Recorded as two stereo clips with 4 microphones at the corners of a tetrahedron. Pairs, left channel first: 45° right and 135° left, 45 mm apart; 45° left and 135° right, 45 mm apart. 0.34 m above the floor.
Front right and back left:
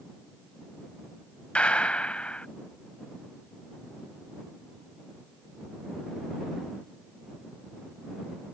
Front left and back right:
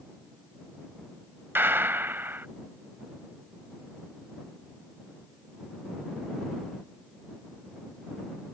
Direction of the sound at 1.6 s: 105° right.